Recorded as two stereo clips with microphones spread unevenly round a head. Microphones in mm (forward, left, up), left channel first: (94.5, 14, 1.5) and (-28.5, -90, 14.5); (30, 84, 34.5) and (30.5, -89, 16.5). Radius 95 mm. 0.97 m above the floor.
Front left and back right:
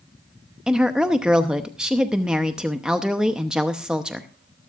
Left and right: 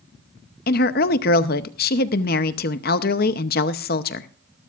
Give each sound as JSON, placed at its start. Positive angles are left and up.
{"t": 0.7, "sound": "a woman speaking", "azimuth_deg": 135, "distance_m": 0.8}